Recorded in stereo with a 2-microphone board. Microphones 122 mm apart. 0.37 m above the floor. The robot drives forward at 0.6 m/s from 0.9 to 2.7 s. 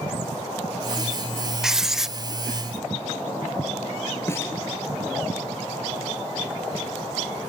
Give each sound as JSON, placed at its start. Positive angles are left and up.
{"t": 1.6, "sound": "writing", "side_deg": -5, "distance_m": 0.7}
{"t": 4.3, "sound": "a snare drum", "side_deg": 20, "distance_m": 2.5}